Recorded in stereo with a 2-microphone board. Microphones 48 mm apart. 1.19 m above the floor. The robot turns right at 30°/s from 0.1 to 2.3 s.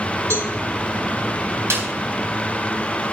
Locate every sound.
0.3 s a cowbell: 65° right (ahead or behind), 3.5 m; by 0.5 s 70° right (ahead or behind), 3.5 m
1.7 s a snare drum: 65° right (ahead or behind), 5 m; by 1.9 s 60° right (ahead or behind), 5 m